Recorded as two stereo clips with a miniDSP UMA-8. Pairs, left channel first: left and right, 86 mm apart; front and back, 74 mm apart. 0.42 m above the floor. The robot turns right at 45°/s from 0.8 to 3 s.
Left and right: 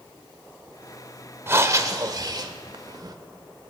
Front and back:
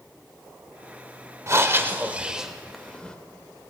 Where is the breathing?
145° right, 0.9 m; by 3.2 s 75° right, 0.9 m.